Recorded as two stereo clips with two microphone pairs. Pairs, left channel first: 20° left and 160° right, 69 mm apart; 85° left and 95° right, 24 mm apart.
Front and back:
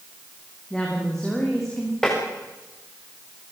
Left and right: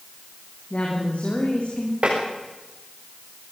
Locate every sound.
0.7 s a woman speaking: 105° left, 6.5 m
2.0 s tapping: 60° right, 8.5 m